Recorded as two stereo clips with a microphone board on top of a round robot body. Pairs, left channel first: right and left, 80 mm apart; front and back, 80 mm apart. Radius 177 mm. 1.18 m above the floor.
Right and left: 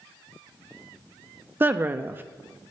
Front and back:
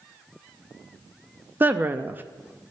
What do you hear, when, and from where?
1.6 s a woman speaking: 135° left, 0.6 m